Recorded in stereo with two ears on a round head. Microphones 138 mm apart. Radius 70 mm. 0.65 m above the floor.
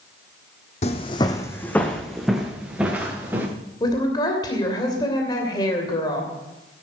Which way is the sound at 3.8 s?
25° left (ahead or behind).